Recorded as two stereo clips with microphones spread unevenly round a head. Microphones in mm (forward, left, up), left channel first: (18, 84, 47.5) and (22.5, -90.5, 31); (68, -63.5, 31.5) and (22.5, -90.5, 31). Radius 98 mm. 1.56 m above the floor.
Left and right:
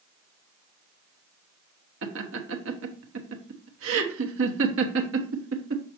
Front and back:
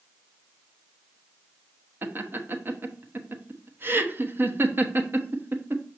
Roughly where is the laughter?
Right.